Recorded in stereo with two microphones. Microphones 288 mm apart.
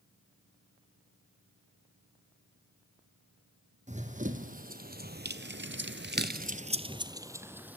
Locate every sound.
3.9 s running footsteps: 25° right (ahead or behind), 2.5 m; by 7.8 s 5° right (ahead or behind), 2 m